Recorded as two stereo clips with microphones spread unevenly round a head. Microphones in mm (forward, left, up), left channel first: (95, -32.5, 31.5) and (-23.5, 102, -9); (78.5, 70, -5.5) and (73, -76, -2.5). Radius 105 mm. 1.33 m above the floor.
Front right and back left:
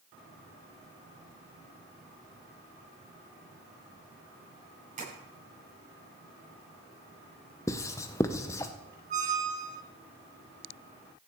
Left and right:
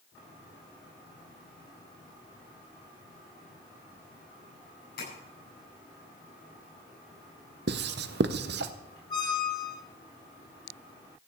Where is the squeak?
110° left, 1.4 m.